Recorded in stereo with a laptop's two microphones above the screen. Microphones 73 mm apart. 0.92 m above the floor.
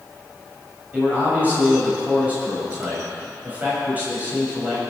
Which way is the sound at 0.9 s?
25° right (ahead or behind).